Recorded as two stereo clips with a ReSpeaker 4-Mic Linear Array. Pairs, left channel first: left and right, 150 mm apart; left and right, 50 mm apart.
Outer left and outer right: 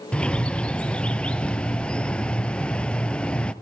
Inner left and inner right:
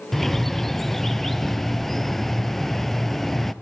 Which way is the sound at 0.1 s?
5° left (ahead or behind).